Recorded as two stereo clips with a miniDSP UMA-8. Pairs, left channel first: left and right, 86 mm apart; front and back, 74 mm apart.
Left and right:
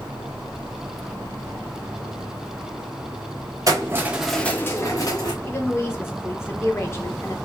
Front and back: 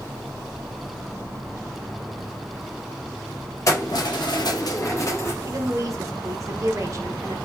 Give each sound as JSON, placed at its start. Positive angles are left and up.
{"t": 3.7, "sound": "keys jangling", "azimuth_deg": -45, "distance_m": 0.6}
{"t": 5.4, "sound": "a woman speaking", "azimuth_deg": 145, "distance_m": 0.6}